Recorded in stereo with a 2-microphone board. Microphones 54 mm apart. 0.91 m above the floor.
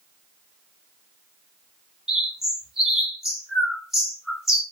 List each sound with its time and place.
2.1 s a bird: 5° right (ahead or behind), 1.3 m